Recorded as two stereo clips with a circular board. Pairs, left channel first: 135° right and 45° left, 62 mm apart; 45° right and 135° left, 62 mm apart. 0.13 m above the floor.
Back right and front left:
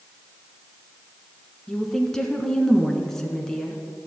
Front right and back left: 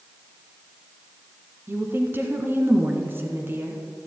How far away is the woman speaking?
About 1.2 m.